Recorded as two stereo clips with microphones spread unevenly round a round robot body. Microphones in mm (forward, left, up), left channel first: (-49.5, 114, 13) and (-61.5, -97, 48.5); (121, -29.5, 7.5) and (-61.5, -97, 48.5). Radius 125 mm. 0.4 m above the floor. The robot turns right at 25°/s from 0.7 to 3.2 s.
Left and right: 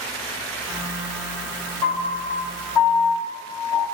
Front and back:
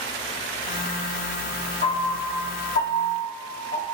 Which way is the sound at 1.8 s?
10° left.